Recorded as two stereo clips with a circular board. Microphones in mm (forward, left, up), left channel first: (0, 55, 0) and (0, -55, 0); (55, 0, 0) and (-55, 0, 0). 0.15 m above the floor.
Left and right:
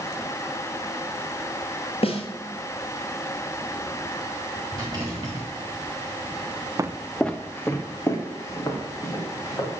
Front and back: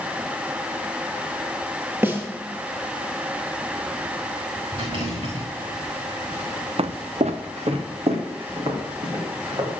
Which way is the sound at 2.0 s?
110° left.